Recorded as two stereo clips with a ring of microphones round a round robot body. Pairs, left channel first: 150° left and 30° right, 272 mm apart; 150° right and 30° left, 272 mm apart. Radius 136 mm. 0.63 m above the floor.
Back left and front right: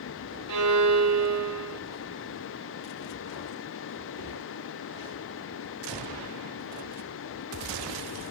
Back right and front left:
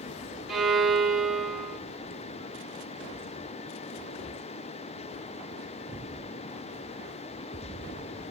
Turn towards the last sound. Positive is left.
turn(degrees=-60)